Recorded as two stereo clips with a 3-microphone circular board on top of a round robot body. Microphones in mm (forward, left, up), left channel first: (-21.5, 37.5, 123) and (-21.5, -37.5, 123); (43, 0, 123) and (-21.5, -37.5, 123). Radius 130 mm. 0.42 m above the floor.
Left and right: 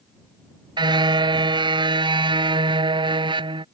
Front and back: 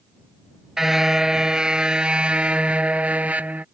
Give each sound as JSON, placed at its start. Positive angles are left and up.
{"t": 0.8, "sound": "a car horn", "azimuth_deg": -65}